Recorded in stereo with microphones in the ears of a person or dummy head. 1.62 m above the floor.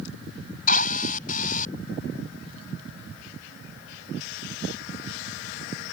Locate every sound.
0.7 s a drill: 40° left (ahead or behind)